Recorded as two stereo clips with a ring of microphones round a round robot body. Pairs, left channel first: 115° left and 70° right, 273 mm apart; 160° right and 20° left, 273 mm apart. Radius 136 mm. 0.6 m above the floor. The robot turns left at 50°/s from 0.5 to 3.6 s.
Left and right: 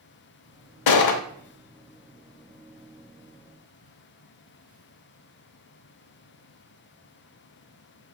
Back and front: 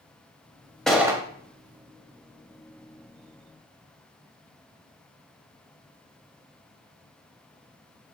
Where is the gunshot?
115° left, 0.6 m; by 1.2 s 95° left, 0.6 m.